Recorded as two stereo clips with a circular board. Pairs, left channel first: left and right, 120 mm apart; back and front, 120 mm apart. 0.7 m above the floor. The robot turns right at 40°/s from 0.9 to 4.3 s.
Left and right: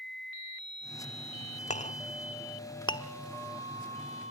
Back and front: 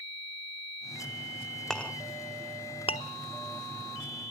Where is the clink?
95° left, 0.8 m; by 3.1 s 150° left, 0.8 m.